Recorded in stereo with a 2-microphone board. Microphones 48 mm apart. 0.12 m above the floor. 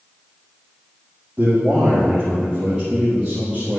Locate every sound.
1.4 s a man speaking: 30° right (ahead or behind), 2.5 m; by 3.8 s 15° right (ahead or behind), 3.5 m